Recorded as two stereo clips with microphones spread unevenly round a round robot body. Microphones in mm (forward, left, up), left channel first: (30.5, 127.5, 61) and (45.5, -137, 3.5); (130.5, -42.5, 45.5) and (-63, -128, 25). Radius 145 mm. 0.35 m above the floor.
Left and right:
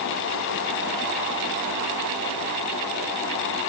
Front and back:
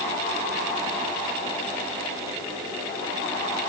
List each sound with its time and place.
Only background noise.